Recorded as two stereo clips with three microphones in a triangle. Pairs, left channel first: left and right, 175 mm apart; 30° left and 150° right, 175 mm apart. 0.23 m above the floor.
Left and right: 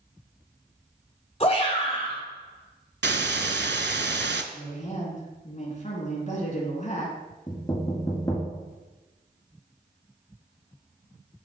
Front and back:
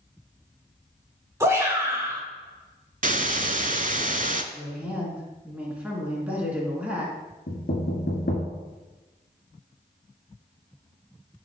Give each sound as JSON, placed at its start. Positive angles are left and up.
{"t": 1.4, "sound": "a shout", "azimuth_deg": 140, "distance_m": 3.0}
{"t": 3.0, "sound": "a hiss", "azimuth_deg": -105, "distance_m": 0.6}
{"t": 4.5, "sound": "a woman speaking", "azimuth_deg": 130, "distance_m": 2.5}
{"t": 7.5, "sound": "knocking", "azimuth_deg": 25, "distance_m": 1.8}